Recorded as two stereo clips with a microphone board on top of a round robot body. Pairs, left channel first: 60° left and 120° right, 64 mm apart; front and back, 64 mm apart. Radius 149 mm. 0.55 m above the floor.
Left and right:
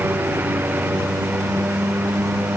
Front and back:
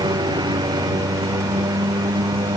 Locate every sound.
0.0 s a lawn mower: straight behind